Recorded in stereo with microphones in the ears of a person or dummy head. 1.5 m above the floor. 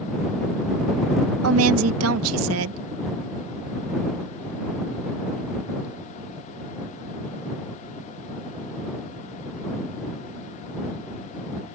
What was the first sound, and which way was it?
A woman speaking, 85° right.